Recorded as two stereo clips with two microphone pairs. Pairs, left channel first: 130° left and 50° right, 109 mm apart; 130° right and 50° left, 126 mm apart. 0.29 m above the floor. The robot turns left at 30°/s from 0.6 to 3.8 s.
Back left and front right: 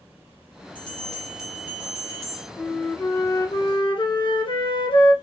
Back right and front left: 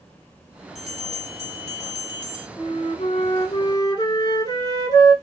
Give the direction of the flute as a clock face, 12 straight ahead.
5 o'clock.